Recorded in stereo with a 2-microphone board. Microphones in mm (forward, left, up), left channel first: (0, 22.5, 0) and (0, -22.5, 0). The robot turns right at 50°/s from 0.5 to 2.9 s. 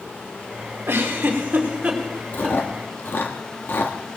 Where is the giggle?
65° right (ahead or behind), 2.5 m; by 2.6 s 10° left (ahead or behind), 2.5 m.